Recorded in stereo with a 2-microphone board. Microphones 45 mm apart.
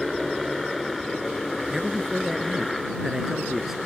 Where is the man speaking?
10° right (ahead or behind).